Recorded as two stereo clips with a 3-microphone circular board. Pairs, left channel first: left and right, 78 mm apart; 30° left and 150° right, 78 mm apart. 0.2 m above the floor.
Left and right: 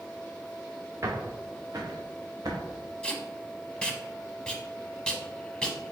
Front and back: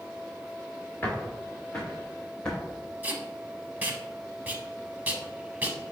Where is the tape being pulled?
160° left, 0.7 m.